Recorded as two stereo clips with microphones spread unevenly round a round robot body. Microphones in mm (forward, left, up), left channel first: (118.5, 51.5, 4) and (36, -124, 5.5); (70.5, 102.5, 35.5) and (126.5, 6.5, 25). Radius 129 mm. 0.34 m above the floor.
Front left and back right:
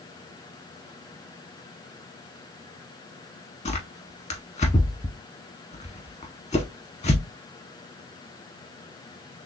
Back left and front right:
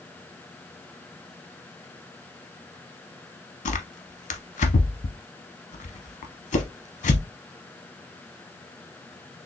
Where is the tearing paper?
130° left, 0.5 m.